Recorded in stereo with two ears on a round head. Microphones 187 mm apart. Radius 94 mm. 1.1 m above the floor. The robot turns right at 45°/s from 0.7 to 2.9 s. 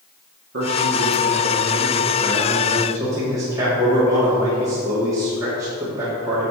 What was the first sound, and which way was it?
A man speaking, 115° right.